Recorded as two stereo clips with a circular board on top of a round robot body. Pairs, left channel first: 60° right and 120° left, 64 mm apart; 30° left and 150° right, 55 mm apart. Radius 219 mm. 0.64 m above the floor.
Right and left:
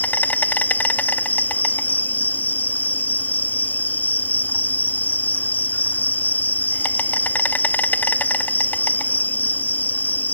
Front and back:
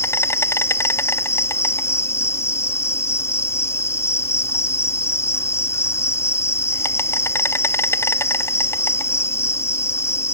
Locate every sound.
0.0 s an insect: straight ahead